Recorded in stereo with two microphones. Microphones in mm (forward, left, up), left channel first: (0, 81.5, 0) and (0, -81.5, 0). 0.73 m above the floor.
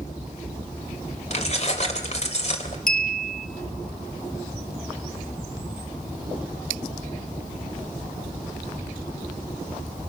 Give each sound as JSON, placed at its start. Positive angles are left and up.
{"t": 1.3, "sound": "keys jangling", "side_deg": 45, "distance_m": 2.5}
{"t": 2.9, "sound": "a clink", "side_deg": 65, "distance_m": 1.0}